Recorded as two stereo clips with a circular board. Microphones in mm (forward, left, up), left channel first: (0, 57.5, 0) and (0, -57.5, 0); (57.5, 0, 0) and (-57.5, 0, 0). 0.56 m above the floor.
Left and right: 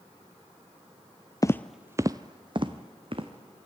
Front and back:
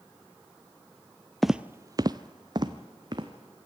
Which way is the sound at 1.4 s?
85° left.